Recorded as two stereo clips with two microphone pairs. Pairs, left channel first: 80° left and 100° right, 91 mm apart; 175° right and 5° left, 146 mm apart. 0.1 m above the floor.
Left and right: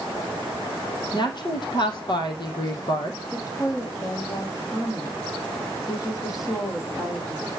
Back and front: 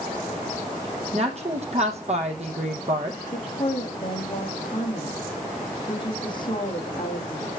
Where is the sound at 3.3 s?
130° left, 4.5 m.